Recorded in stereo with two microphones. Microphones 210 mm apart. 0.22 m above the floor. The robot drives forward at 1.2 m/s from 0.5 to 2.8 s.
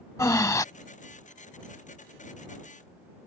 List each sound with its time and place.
0.2 s breathing: 15° left (ahead or behind); by 0.7 s 20° left (ahead or behind)